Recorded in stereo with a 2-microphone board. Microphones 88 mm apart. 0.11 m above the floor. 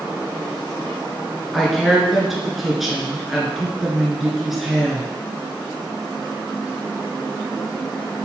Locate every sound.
1.5 s a woman speaking: centre (ahead or behind), 1.3 m